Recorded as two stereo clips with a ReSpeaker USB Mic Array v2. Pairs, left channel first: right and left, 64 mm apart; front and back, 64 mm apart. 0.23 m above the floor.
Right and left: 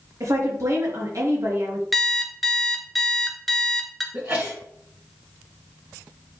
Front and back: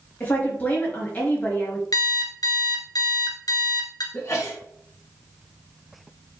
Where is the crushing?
I don't hear crushing.